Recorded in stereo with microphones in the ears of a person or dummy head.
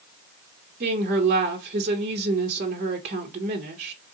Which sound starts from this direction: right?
A woman speaking, at 0.8 s.